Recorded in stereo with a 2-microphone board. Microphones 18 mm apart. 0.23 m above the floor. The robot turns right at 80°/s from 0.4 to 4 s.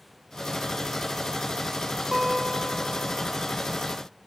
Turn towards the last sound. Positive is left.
turn(degrees=130)